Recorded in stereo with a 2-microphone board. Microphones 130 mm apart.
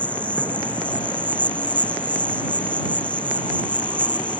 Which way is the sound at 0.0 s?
10° left (ahead or behind).